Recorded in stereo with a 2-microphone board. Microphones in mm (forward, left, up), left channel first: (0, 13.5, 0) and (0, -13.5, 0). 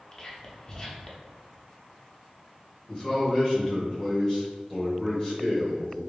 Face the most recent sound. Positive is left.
turn(degrees=25)  # may be behind; listen again after turning